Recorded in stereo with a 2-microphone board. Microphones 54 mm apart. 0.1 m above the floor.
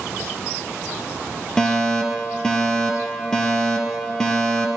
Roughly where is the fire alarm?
Centre.